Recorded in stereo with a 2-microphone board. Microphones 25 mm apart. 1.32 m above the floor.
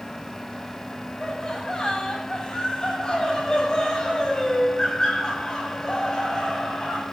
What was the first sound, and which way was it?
Laughter, 30° left (ahead or behind).